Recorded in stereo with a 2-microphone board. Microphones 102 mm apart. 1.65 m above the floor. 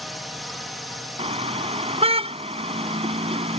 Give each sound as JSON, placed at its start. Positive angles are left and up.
{"t": 0.0, "sound": "a drone", "side_deg": 0}
{"t": 1.2, "sound": "a car horn", "side_deg": -75}